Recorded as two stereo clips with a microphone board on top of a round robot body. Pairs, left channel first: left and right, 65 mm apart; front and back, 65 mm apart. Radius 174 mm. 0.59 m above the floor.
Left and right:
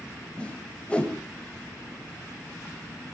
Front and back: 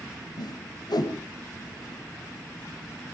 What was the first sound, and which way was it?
A whoosh, 15° left.